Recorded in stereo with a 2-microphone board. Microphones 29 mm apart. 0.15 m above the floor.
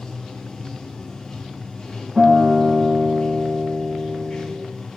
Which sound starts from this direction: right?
A guitar, at 2.2 s.